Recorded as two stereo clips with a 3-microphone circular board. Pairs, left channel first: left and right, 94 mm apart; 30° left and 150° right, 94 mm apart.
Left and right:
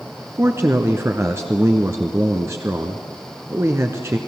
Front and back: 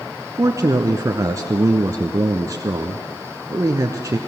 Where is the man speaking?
130° right, 1.2 m.